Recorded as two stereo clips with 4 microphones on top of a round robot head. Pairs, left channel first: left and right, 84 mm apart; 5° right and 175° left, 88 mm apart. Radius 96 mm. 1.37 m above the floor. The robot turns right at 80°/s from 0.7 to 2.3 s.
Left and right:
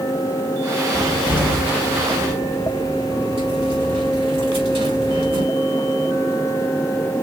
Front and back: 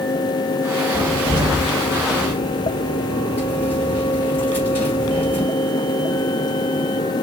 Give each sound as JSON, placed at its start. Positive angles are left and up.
{"t": 0.9, "sound": "a cupboard door", "azimuth_deg": 170, "distance_m": 3.5}